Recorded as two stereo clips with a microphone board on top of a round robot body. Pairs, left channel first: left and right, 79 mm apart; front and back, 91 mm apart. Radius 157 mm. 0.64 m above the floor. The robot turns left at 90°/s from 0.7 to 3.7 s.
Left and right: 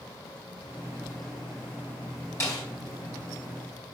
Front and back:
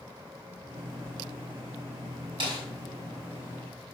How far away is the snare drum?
About 4 m.